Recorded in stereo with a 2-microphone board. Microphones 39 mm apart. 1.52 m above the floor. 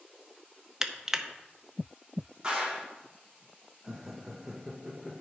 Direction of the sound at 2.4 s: 15° right (ahead or behind).